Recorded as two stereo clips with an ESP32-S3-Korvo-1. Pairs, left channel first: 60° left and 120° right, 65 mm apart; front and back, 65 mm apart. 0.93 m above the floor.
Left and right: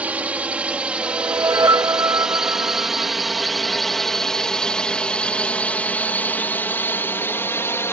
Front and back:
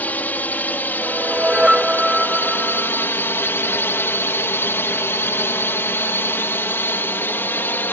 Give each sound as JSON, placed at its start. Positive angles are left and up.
{"t": 0.0, "sound": "a drone", "azimuth_deg": -60}
{"t": 1.0, "sound": "a whoosh", "azimuth_deg": -100}